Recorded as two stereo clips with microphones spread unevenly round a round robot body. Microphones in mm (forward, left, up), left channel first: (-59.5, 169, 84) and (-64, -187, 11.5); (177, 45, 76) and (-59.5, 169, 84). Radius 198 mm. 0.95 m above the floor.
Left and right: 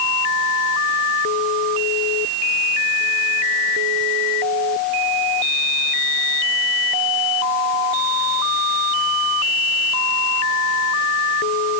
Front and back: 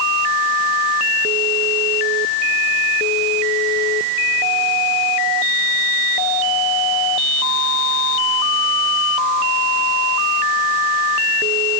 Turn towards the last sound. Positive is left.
No sound to turn to.